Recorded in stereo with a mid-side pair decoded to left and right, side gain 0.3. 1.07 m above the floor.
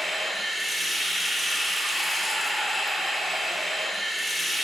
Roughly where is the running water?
Ahead.